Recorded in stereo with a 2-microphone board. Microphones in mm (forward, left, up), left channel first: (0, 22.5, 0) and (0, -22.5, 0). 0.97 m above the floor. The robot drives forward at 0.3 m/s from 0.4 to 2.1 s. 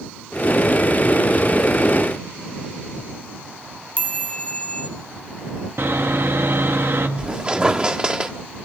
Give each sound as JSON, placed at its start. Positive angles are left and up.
{"t": 4.0, "sound": "a chime", "side_deg": 30, "distance_m": 3.0}
{"t": 5.8, "sound": "sawing", "side_deg": -65, "distance_m": 1.7}
{"t": 7.2, "sound": "a squeak", "side_deg": -20, "distance_m": 1.3}